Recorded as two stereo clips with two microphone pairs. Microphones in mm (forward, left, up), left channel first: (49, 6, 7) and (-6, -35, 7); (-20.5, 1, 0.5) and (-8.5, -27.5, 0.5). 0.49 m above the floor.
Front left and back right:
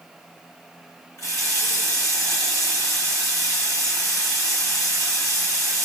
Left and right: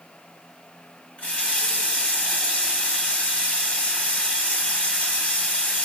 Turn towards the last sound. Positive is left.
turn(degrees=70)